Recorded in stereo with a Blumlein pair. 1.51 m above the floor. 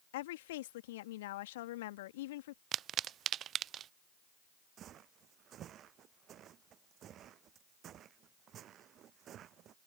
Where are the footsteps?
30° right.